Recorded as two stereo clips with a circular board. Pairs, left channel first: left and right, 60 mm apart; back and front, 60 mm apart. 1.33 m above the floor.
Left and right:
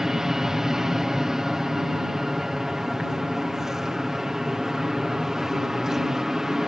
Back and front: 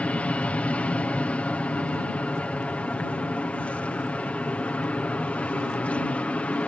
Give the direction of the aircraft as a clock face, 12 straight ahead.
5 o'clock.